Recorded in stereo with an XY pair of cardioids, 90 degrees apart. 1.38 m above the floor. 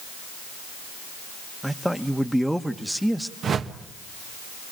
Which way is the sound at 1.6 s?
5° right.